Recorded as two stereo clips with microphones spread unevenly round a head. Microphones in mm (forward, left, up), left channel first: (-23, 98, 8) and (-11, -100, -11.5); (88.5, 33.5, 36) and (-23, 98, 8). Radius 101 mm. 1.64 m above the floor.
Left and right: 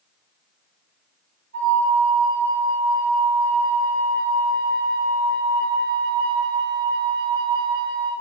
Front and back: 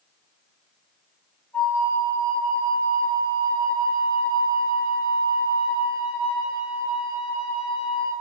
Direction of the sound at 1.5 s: 115° right.